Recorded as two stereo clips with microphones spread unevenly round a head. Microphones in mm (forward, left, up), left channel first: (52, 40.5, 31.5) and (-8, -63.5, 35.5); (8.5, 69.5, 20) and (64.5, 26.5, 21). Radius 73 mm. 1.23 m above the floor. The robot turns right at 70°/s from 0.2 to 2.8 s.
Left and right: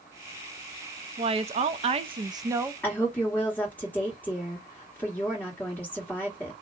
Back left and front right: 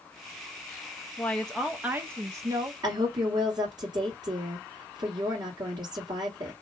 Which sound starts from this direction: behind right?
A woman speaking, at 1.2 s.